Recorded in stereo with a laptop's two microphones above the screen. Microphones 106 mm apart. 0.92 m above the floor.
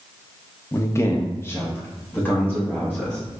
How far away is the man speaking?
About 0.7 m.